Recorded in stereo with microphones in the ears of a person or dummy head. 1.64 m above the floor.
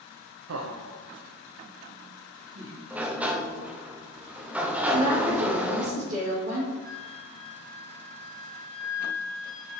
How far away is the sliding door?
About 0.7 m.